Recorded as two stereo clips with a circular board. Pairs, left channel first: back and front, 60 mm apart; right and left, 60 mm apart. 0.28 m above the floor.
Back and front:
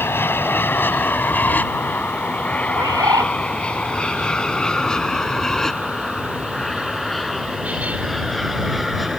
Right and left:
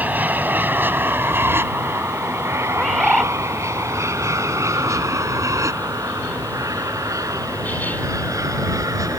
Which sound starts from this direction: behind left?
An aircraft, at 0.0 s.